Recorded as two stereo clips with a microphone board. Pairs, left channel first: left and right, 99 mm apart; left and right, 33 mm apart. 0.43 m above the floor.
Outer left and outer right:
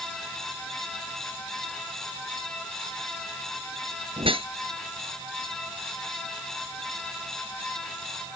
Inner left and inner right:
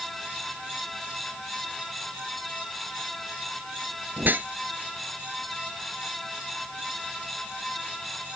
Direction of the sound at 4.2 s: 65° right (ahead or behind).